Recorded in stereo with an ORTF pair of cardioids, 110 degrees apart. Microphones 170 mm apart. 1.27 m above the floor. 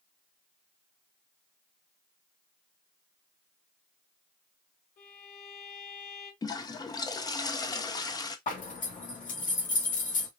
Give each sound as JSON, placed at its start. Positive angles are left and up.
{"t": 5.0, "sound": "a violin", "azimuth_deg": 65, "distance_m": 3.0}
{"t": 6.4, "sound": "a toilet flushing", "azimuth_deg": 25, "distance_m": 0.9}
{"t": 8.5, "sound": "a zipper", "azimuth_deg": 50, "distance_m": 2.5}